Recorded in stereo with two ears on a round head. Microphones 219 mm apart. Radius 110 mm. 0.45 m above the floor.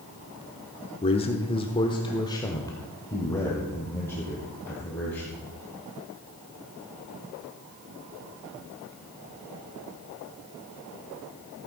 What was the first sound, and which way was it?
A man speaking, 25° left (ahead or behind).